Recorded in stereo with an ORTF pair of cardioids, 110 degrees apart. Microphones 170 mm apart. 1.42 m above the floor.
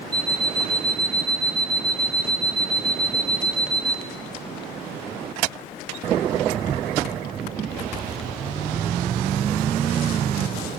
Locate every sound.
0.1 s an alarm clock: 25° right, 2 m